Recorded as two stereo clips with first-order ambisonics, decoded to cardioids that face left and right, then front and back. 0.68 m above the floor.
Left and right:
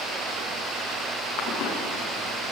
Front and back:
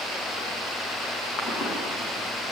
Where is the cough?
50° left, 8.5 m.